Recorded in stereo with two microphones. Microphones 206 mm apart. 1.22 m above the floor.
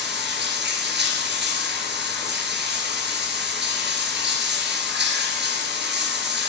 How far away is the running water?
About 2.5 m.